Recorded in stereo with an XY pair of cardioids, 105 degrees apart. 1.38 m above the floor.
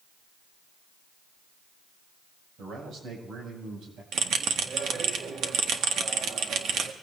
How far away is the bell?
About 1.7 m.